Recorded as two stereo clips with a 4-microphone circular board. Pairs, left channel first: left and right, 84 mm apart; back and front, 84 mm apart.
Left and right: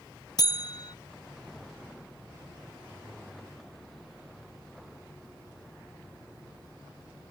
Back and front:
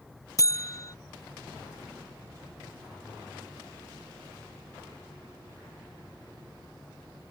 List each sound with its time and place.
0.4 s a buzzer: 130° left